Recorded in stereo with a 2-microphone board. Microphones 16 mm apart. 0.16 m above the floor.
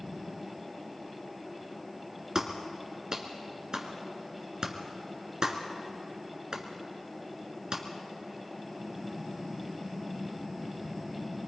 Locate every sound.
2.4 s a clap: 45° right (ahead or behind), 2 m